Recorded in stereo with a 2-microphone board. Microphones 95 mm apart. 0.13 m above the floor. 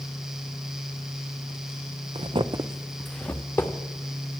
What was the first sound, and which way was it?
Footsteps, 85° right.